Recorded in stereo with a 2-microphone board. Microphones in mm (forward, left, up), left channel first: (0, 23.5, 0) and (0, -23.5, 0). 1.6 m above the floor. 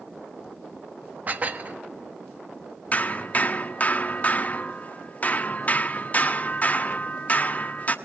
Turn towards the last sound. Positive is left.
turn(degrees=35)  # may be behind; listen again after turning